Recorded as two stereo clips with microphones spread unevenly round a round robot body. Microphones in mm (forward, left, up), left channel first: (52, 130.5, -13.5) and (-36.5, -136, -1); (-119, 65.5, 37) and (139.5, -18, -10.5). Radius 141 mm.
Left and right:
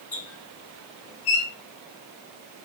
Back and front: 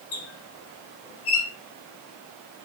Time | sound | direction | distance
0.1 | a squeak | 115° left | 0.9 m